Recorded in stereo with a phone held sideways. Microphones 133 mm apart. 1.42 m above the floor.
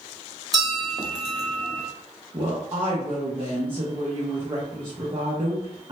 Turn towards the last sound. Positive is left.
turn(degrees=-40)  # may be behind; listen again after turning